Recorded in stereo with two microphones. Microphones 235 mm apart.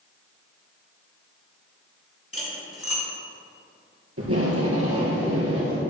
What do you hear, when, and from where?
2.3 s cutlery clinking: 70° left (ahead or behind), 3 m
4.2 s tape being pulled: 75° right (ahead or behind), 2.5 m